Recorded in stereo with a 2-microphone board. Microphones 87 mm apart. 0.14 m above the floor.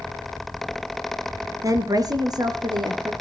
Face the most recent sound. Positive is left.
turn(degrees=-55)  # may be behind; listen again after turning